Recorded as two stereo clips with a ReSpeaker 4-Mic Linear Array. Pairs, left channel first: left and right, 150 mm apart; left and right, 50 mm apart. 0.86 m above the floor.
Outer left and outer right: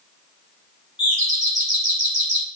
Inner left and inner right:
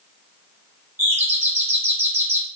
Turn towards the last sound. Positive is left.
turn(degrees=-50)  # may be behind; listen again after turning